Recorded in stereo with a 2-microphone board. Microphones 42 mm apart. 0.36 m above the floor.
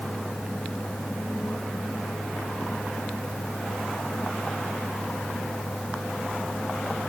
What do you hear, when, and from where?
Only background noise.